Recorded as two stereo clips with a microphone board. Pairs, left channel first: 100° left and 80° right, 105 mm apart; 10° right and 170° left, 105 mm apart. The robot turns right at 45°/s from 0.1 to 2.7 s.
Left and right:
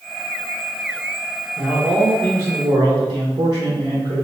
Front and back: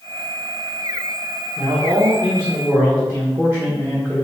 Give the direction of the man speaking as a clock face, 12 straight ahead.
6 o'clock.